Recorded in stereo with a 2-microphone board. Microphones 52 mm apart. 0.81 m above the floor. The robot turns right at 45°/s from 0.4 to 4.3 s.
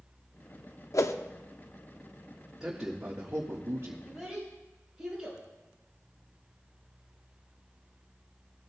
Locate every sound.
0.9 s a whoosh: 70° left (ahead or behind), 0.6 m; by 1.1 s 60° left (ahead or behind), 0.6 m
2.6 s a man speaking: 170° right, 1.5 m; by 3.9 s 110° right, 1.5 m
4.0 s a child speaking: 5° left (ahead or behind), 4.5 m; by 5.4 s 5° right (ahead or behind), 4.5 m